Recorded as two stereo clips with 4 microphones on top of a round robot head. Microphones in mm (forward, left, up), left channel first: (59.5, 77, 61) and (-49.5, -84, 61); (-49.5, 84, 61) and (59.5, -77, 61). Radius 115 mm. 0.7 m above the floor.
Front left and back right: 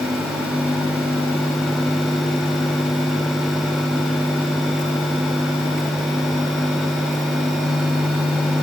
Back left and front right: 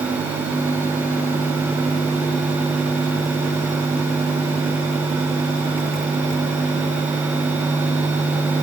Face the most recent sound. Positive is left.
No sound to turn to.